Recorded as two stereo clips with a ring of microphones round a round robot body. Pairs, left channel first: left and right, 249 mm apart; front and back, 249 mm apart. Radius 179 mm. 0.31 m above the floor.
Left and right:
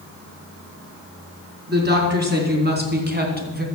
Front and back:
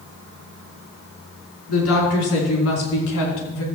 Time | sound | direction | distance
1.7 | a woman speaking | 45° right | 4.5 m